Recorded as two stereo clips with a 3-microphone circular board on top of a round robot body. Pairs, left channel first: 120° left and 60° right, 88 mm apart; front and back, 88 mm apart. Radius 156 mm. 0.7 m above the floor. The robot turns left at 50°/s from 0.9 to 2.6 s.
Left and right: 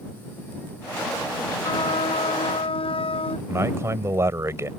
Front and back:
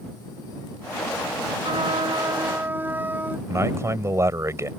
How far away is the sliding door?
I don't hear a sliding door.